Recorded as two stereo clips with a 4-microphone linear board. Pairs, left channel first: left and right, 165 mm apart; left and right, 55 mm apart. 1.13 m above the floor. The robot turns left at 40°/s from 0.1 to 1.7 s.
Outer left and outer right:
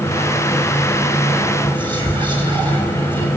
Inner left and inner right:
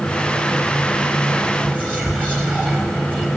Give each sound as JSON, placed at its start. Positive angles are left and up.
{"t": 1.6, "sound": "whispering", "side_deg": -30, "distance_m": 7.0}